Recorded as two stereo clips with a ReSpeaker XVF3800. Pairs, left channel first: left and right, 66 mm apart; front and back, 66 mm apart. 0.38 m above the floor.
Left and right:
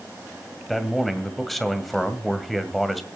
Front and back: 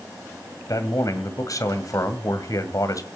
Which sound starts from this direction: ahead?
A man speaking, at 0.7 s.